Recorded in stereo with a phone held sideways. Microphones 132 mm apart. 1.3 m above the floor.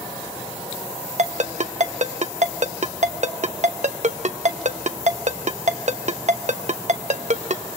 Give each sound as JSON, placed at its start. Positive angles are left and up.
{"t": 1.2, "sound": "a ringtone", "side_deg": -60, "distance_m": 0.8}